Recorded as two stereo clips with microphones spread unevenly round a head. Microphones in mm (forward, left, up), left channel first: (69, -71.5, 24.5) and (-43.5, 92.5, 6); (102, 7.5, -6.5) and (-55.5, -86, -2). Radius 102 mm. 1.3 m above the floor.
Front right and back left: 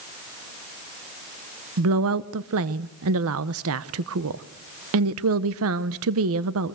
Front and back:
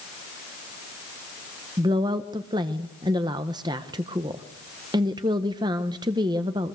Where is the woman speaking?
140° left, 0.9 m.